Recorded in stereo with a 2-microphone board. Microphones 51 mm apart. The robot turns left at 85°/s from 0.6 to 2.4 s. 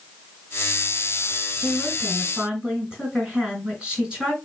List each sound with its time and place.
1.6 s a woman speaking: 50° left, 4 m; by 4.3 s 15° right, 4 m